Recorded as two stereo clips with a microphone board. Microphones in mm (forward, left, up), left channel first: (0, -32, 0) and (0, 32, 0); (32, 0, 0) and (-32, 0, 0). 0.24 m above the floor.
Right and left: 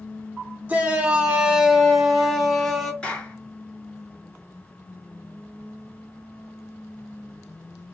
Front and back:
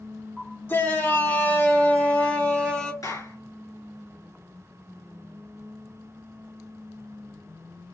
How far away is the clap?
About 2.5 m.